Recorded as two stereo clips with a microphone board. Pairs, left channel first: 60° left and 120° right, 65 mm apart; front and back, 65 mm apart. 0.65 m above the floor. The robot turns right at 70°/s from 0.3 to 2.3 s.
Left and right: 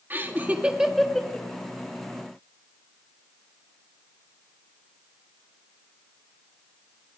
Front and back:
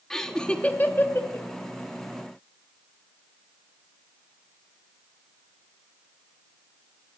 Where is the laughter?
80° right, 1.1 m; by 1.5 s 5° left, 1.1 m.